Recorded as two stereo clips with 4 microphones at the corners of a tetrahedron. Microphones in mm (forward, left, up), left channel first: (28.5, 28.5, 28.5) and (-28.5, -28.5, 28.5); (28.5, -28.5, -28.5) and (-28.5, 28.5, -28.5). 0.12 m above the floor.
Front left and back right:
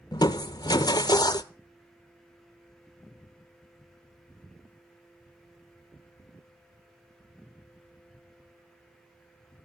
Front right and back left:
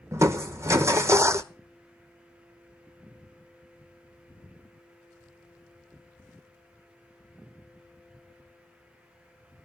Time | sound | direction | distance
0.1 | crushing | 80° left | 0.7 m